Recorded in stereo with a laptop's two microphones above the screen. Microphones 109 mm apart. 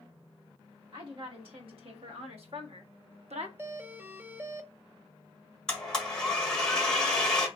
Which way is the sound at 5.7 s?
5° left (ahead or behind).